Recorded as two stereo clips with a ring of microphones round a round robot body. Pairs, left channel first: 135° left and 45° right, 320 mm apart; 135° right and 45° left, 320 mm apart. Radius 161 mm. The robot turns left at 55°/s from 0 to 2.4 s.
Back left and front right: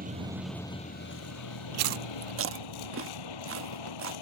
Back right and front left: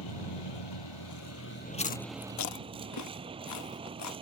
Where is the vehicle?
110° right; by 4.2 s 120° left.